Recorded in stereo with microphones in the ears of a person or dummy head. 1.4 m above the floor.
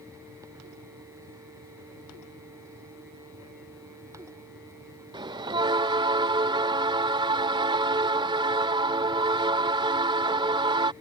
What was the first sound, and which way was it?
A bell, 20° right (ahead or behind).